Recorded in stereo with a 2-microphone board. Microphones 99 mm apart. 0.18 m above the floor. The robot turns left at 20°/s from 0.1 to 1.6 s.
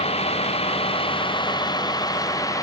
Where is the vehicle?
80° left; by 2.6 s 35° left (ahead or behind).